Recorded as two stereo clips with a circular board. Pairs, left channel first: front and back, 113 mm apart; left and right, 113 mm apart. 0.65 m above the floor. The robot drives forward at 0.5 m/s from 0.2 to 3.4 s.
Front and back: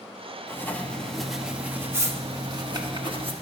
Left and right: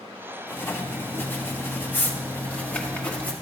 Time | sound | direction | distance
0.5 | writing | 40° left | 1.0 m